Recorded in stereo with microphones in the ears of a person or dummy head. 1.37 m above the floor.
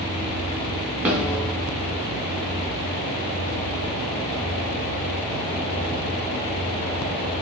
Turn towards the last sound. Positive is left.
turn(degrees=-5)  # may be behind; listen again after turning